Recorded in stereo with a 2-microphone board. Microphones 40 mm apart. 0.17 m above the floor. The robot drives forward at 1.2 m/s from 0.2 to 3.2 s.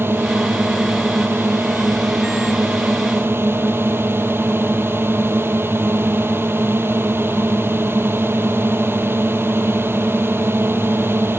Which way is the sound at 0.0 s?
70° right (ahead or behind).